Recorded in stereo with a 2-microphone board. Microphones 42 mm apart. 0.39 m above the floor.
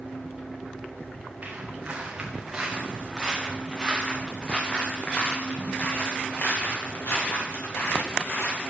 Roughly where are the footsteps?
Right.